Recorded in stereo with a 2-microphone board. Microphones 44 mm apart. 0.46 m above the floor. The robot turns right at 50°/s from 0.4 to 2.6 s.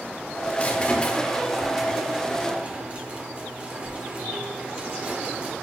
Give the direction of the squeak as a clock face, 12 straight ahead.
8 o'clock.